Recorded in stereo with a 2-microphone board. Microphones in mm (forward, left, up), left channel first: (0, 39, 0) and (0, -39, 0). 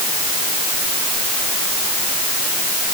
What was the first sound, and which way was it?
Only background noise.